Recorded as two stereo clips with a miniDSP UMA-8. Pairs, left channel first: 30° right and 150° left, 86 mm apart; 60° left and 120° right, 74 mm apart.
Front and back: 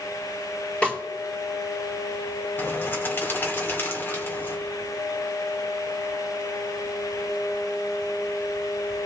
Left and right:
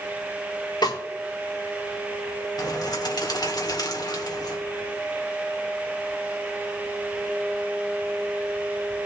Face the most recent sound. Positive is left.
turn(degrees=35)